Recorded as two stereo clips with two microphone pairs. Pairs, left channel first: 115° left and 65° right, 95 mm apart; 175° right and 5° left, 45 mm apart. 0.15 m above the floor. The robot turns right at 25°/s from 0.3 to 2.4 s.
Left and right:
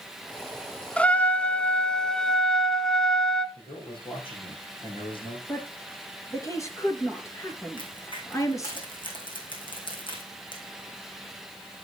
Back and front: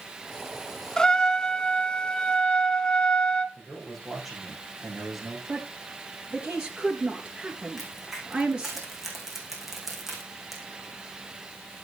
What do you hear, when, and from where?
1.0 s a trumpet: 145° left, 0.7 m; by 3.5 s 175° right, 0.7 m
3.5 s a man speaking: 90° left, 7 m
5.5 s a woman speaking: 65° left, 3 m
7.8 s a crack: 90° left, 4.5 m